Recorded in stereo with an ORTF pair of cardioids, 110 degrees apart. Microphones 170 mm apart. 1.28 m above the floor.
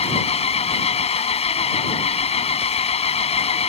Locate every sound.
0.0 s an engine running: 35° left